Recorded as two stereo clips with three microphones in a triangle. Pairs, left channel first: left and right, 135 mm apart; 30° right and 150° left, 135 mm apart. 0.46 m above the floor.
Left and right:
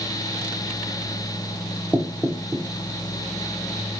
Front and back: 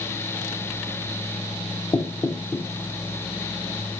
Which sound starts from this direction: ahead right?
Knocking, at 1.9 s.